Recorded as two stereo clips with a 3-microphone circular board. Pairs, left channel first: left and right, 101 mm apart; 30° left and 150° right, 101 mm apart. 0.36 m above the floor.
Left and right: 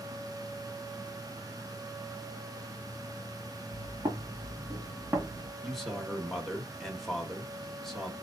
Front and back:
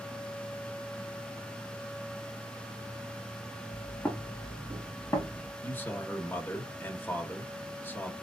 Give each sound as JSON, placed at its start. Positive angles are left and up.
{"t": 3.7, "sound": "footsteps", "azimuth_deg": -50, "distance_m": 2.5}
{"t": 5.6, "sound": "a man speaking", "azimuth_deg": 5, "distance_m": 1.1}